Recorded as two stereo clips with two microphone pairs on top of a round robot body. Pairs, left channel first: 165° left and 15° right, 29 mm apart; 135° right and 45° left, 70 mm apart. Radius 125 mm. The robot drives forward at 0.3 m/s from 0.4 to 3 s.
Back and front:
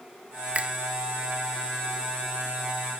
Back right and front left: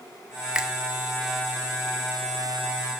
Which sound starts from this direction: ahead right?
A finger snap, at 0.6 s.